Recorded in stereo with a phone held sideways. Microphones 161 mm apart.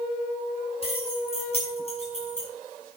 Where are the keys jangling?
35° left (ahead or behind), 7.5 m; by 2.5 s 40° left (ahead or behind), 6 m.